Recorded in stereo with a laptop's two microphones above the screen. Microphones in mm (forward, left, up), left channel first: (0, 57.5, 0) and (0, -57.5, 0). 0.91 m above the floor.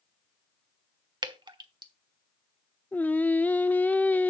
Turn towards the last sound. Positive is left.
turn(degrees=15)  # may be behind; listen again after turning